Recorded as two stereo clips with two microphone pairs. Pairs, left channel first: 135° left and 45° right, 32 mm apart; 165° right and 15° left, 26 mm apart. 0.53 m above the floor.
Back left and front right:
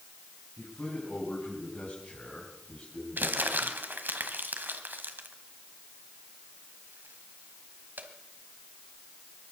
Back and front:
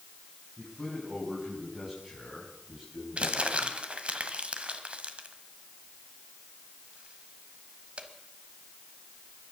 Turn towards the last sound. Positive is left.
turn(degrees=-30)